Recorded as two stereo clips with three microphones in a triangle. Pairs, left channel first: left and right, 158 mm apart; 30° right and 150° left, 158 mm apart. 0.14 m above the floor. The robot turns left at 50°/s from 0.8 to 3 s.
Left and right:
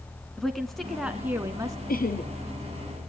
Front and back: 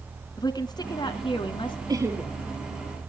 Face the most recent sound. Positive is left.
turn(degrees=30)